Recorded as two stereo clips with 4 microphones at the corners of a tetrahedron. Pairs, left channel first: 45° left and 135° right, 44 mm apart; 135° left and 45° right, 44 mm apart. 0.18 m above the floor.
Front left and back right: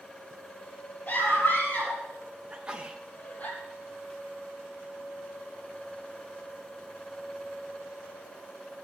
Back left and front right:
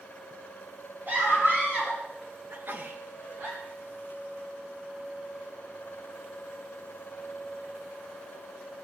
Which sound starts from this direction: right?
A sneeze, at 2.5 s.